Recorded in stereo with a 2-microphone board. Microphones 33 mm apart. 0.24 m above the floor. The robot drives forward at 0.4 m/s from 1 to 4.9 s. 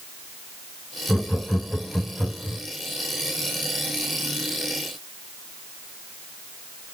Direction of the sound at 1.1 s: 40° left (ahead or behind).